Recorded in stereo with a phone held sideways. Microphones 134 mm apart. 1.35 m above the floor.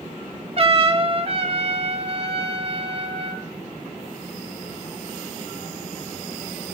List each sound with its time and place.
0.6 s a trumpet: 45° right (ahead or behind), 0.9 m